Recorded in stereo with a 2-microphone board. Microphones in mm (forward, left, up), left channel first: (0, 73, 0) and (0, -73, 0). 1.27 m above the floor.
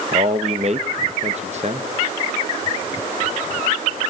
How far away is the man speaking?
About 1.4 m.